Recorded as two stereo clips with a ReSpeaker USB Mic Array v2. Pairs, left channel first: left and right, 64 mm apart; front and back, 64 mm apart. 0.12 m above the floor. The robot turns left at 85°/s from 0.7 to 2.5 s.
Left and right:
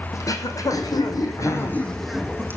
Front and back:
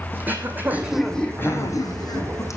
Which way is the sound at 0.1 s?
120° left.